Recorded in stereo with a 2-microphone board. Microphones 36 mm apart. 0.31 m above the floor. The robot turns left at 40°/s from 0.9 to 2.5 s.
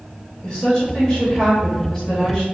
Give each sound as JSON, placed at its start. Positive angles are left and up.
{"t": 0.4, "sound": "a woman speaking", "side_deg": 20, "distance_m": 1.2}